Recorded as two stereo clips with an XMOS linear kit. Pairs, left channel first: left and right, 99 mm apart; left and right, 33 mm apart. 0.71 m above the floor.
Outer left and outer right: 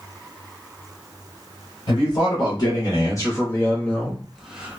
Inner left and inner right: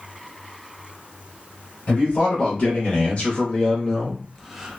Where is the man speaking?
50° left (ahead or behind), 1.5 m; by 4.8 s 15° right (ahead or behind), 0.8 m.